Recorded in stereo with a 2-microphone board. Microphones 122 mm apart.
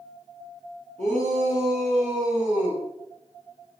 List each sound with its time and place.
1.0 s a shout: 85° right, 4 m; by 2.8 s 75° right (ahead or behind), 3.5 m